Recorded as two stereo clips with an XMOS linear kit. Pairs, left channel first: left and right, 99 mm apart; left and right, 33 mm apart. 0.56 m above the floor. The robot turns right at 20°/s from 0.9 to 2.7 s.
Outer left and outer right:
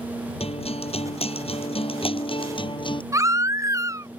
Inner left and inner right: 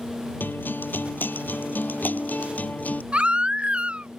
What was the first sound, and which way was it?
A guitar, 85° left.